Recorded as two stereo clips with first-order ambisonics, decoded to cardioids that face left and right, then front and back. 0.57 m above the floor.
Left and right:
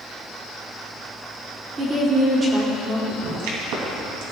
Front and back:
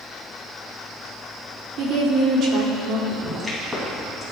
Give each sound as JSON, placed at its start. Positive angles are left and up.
{"t": 1.8, "sound": "a woman speaking", "azimuth_deg": -160, "distance_m": 1.7}
{"t": 3.1, "sound": "a pop", "azimuth_deg": -90, "distance_m": 2.5}